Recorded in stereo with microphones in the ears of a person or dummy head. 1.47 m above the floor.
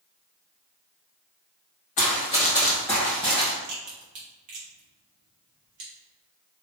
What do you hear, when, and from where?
2.0 s running footsteps: 30° left (ahead or behind), 1.8 m; by 3.5 s 5° right (ahead or behind), 1.6 m
3.6 s a crack: 35° right (ahead or behind), 1.3 m